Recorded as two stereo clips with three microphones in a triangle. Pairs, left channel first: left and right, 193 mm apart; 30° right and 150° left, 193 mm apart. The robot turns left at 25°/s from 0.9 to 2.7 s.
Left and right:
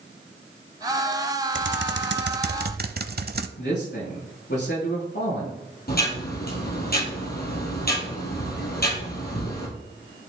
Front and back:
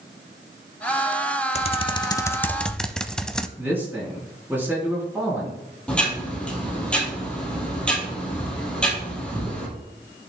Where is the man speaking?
70° left, 4 m.